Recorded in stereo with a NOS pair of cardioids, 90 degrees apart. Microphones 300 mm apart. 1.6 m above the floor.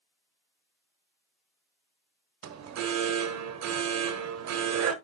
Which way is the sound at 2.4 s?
60° right.